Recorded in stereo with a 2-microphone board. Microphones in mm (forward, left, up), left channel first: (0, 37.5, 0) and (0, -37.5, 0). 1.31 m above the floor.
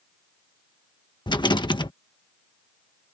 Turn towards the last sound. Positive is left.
turn(degrees=75)  # may be behind; listen again after turning